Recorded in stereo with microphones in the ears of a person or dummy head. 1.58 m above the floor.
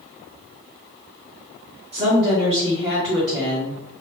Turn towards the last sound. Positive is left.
turn(degrees=-20)  # may be behind; listen again after turning